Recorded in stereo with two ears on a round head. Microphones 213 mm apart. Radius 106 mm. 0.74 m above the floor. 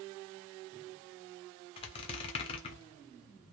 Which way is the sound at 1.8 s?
25° left (ahead or behind).